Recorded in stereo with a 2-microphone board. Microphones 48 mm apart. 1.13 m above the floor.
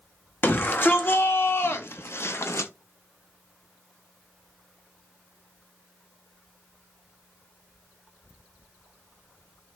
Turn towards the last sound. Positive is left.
turn(degrees=65)  # may be behind; listen again after turning